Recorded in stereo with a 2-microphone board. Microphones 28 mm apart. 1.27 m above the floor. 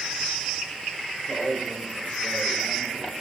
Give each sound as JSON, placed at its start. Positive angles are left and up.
{"t": 1.3, "sound": "a man speaking", "side_deg": 70, "distance_m": 4.0}